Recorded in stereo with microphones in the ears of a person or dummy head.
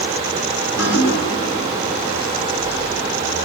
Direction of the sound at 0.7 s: 65° left (ahead or behind).